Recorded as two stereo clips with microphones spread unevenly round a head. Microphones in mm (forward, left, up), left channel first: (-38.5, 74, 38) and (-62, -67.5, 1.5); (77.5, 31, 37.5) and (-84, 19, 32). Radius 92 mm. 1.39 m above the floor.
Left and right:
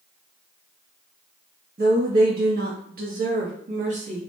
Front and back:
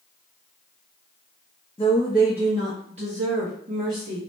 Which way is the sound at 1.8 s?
60° right.